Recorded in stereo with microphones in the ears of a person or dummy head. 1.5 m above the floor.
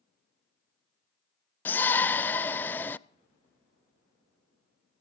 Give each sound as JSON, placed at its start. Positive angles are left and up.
{"t": 1.6, "sound": "a shout", "side_deg": 5, "distance_m": 0.5}